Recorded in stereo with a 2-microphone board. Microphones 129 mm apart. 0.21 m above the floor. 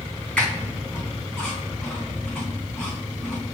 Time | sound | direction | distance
0.4 | a squeak | 10° left (ahead or behind) | 4.5 m